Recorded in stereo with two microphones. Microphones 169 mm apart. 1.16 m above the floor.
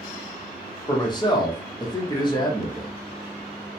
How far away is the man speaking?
About 0.8 m.